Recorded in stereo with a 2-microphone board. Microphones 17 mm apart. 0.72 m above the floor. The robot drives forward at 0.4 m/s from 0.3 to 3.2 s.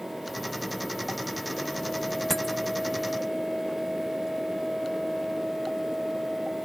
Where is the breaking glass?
20° left (ahead or behind).